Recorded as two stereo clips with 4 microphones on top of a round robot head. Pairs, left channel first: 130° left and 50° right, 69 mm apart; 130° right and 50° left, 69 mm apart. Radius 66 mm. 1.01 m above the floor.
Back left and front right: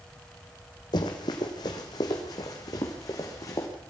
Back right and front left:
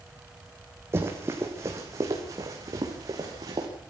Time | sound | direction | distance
0.9 | running footsteps | 105° left | 3 m